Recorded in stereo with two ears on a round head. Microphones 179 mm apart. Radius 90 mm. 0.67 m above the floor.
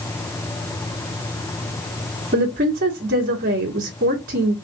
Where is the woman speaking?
45° right (ahead or behind), 1.2 m.